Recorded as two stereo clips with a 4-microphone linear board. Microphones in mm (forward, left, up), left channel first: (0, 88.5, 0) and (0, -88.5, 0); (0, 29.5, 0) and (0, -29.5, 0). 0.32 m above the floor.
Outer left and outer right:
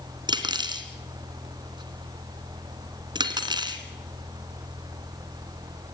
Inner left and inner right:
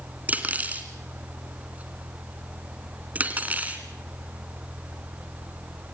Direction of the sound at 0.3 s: 25° right (ahead or behind).